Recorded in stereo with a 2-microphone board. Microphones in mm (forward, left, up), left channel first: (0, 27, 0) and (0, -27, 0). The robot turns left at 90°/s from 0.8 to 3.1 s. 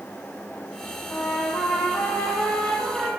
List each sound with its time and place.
1.1 s a trumpet: 145° left, 1.5 m; by 3.1 s 35° right, 1.5 m